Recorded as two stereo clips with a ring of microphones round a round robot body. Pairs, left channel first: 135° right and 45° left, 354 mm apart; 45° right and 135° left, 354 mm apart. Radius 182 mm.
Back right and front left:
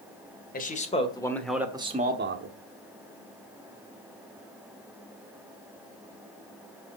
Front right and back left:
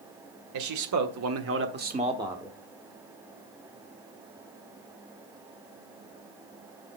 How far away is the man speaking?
About 2 m.